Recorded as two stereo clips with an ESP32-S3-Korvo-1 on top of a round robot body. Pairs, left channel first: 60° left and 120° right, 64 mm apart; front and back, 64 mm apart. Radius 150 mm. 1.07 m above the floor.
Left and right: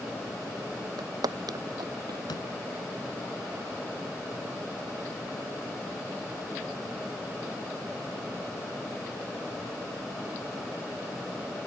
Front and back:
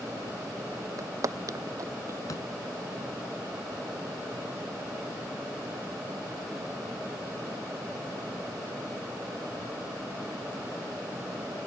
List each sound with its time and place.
1.0 s footsteps: 145° right; by 2.2 s 140° right
2.3 s a door slam: 40° left